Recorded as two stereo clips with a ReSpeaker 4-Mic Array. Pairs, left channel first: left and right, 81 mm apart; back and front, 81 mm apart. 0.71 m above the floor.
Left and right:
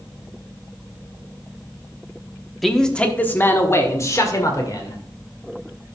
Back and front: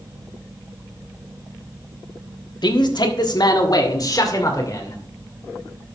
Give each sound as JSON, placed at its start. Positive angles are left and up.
{"t": 2.6, "sound": "a man speaking", "azimuth_deg": 180, "distance_m": 1.2}